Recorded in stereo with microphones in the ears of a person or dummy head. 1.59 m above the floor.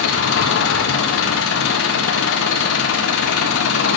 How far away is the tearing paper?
I don't hear tearing paper.